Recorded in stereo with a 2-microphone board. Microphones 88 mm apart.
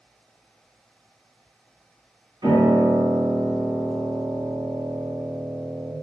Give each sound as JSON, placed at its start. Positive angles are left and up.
{"t": 2.4, "sound": "a piano", "side_deg": -60, "distance_m": 1.9}